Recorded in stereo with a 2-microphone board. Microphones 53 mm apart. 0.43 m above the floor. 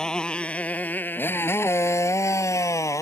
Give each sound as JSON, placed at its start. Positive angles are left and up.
{"t": 0.0, "sound": "a motorcycle", "side_deg": 15}